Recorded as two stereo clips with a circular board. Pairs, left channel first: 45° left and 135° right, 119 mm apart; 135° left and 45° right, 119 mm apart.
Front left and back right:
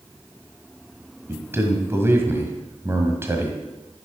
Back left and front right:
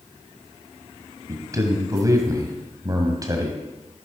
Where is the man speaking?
80° right, 1.6 m.